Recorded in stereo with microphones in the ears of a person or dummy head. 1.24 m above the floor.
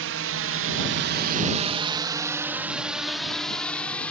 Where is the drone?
65° right (ahead or behind); by 4.1 s 10° left (ahead or behind).